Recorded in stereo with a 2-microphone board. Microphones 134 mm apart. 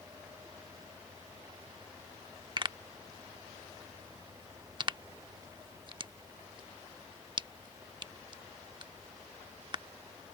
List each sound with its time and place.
2.6 s a pop: 35° right (ahead or behind)